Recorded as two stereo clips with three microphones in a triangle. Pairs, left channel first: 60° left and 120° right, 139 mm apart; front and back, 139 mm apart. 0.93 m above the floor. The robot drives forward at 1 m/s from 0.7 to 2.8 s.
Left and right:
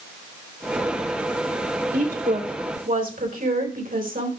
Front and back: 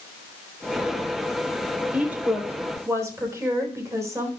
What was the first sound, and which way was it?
A woman speaking, 100° right.